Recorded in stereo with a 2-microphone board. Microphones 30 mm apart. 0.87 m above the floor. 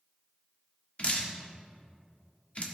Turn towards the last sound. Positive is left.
turn(degrees=35)  # may be behind; listen again after turning